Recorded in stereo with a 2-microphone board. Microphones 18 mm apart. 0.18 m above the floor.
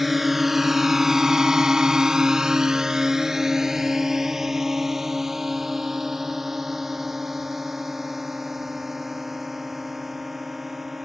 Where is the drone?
10° right (ahead or behind); by 11.1 s 15° right (ahead or behind).